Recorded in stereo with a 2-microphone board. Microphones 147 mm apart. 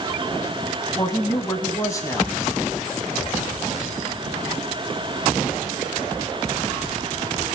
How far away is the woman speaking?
About 1.0 m.